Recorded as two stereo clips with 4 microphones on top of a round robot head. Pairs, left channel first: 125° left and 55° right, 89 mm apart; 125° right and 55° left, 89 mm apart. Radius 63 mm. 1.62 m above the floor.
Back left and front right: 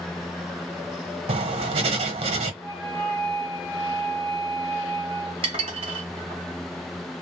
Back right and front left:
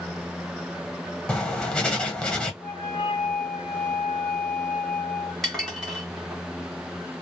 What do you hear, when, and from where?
1.3 s writing: 45° right, 1.0 m
2.6 s a flute: 165° right, 0.9 m
5.4 s dishes clattering: 35° right, 1.2 m